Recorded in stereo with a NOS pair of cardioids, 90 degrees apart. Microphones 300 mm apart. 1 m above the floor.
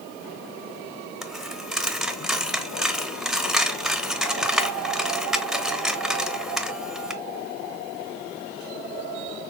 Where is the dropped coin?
Straight ahead, 0.8 m.